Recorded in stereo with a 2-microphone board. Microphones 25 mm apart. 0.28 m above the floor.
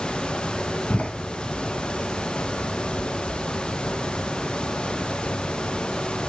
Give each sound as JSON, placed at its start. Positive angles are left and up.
{"t": 0.9, "sound": "a door slam", "side_deg": 65, "distance_m": 1.7}